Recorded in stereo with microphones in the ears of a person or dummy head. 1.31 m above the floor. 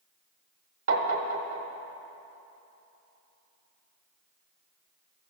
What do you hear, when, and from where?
0.9 s tapping: 70° right (ahead or behind), 1.2 m